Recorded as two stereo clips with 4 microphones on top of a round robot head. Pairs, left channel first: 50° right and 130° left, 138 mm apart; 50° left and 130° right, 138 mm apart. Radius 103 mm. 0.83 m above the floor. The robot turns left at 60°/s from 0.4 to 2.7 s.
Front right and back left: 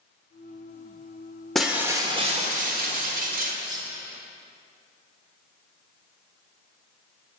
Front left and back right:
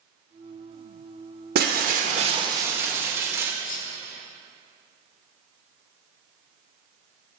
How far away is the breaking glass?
About 1.2 m.